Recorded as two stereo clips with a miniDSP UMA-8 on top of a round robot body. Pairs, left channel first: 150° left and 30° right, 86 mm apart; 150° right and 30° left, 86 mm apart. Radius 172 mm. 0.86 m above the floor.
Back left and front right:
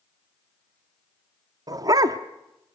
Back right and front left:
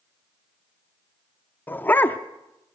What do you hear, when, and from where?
1.7 s a dog barking: 80° right, 0.6 m